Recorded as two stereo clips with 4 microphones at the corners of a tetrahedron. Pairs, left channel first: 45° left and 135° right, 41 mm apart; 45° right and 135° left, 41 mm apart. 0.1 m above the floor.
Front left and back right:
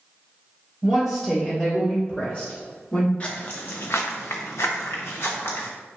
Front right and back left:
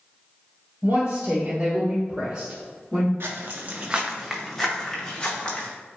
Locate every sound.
0.8 s a woman speaking: 145° left, 1.3 m; by 3.1 s 60° left, 1.4 m
3.2 s footsteps: 110° left, 0.7 m; by 5.7 s 15° left, 1.5 m